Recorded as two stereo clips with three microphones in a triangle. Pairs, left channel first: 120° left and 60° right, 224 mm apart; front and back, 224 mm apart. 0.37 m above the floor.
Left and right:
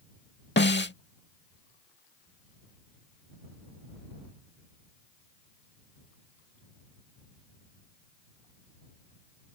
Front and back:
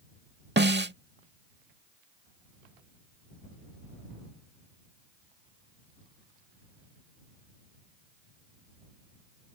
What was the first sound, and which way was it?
A snare drum, 150° left.